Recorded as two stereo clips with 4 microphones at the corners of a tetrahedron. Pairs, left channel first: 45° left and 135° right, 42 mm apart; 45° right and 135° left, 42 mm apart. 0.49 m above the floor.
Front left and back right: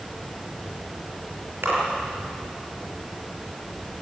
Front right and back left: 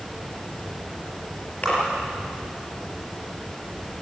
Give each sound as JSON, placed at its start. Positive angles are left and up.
{"t": 1.6, "sound": "a splash", "azimuth_deg": -105, "distance_m": 6.5}